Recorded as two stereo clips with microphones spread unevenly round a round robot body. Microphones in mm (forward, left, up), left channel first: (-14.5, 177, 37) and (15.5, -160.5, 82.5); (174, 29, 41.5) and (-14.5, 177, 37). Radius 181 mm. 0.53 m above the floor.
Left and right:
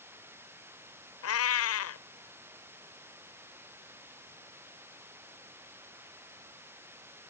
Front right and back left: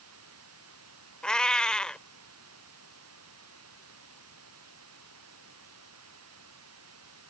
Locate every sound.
0.0 s running water: 170° right
1.2 s a cat meowing: 50° left